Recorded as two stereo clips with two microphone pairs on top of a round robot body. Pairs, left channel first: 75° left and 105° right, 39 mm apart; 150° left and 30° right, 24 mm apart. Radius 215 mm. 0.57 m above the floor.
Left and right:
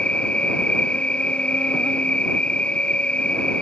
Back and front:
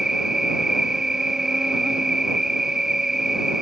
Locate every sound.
0.0 s an insect: 35° left